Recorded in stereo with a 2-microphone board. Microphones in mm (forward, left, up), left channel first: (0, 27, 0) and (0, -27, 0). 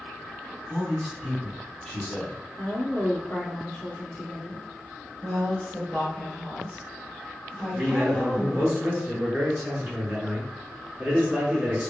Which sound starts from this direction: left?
A woman speaking, at 2.6 s.